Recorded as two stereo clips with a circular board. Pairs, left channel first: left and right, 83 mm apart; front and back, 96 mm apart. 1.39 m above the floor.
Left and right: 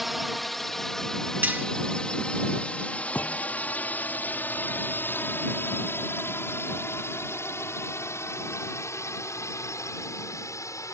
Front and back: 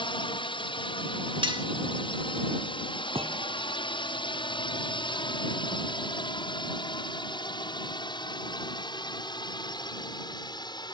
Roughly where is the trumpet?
I don't hear a trumpet.